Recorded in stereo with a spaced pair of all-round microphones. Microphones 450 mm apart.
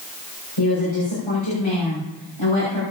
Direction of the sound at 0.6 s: 85° left.